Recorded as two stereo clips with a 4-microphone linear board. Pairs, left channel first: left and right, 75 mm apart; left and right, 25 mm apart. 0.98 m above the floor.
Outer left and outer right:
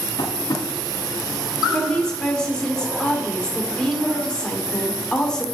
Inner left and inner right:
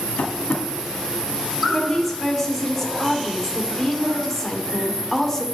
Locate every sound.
0.2 s tapping: 70° left (ahead or behind), 1.8 m
1.7 s a woman speaking: 10° left (ahead or behind), 2.5 m